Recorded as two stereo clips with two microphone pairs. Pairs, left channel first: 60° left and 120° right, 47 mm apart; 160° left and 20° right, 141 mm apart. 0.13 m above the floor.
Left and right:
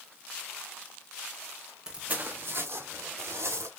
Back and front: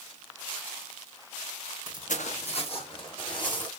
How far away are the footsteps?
About 0.6 m.